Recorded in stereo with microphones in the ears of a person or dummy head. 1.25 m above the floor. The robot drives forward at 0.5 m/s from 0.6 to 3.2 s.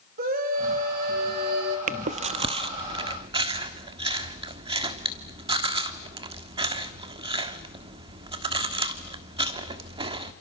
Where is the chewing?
45° right (ahead or behind), 1.1 m; by 10.3 s 30° right (ahead or behind), 1.6 m.